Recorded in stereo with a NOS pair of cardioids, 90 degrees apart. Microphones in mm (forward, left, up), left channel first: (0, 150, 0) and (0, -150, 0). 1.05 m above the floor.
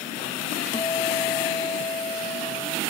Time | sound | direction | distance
0.7 | a guitar | 15° left | ?